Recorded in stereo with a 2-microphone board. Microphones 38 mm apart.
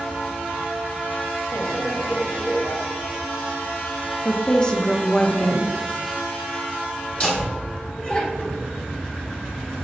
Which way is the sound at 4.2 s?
20° left (ahead or behind).